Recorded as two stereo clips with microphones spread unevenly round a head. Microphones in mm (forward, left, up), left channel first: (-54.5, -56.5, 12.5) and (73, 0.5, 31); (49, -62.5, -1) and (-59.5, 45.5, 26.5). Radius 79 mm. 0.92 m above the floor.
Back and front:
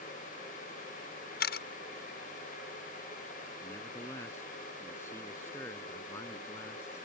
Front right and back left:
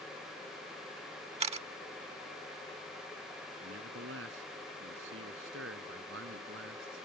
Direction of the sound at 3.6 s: 130° left.